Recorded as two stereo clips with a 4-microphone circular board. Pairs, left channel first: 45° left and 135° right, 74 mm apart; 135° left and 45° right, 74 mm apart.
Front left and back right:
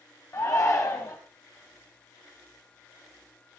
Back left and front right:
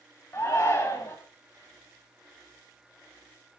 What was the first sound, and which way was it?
A shout, 85° left.